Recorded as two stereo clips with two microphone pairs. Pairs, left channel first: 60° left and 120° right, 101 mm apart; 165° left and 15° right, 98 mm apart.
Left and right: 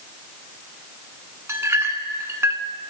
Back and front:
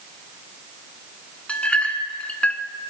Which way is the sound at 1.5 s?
130° right.